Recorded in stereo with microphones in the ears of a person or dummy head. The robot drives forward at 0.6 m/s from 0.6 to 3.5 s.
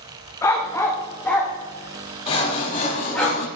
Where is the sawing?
35° left (ahead or behind), 1.3 m; by 3.5 s 50° left (ahead or behind), 0.9 m.